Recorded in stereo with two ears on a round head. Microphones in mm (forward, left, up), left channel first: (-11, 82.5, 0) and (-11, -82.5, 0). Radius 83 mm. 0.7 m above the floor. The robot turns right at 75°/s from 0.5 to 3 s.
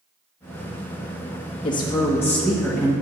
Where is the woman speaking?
25° left (ahead or behind), 1.1 m; by 2.9 s 10° right (ahead or behind), 1.1 m.